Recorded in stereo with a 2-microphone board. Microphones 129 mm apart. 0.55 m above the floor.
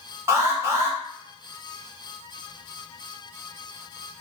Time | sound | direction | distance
0.3 | an alarm | 20° right (ahead or behind) | 0.9 m